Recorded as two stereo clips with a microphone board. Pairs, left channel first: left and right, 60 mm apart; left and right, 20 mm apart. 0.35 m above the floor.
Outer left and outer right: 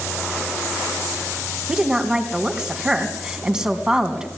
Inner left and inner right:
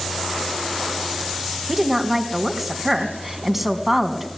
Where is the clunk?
I don't hear a clunk.